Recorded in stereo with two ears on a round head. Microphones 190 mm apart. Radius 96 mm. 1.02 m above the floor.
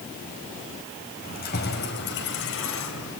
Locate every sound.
1.2 s keys jangling: 40° left (ahead or behind), 5 m; by 3.1 s 70° left (ahead or behind), 4 m